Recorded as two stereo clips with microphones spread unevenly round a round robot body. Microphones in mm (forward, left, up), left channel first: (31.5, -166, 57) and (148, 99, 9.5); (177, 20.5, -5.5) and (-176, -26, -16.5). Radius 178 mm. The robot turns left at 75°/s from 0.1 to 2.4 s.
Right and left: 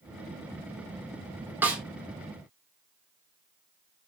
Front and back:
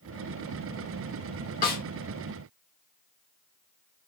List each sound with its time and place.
1.6 s a snare drum: 20° left, 0.8 m; by 1.8 s 5° left, 0.8 m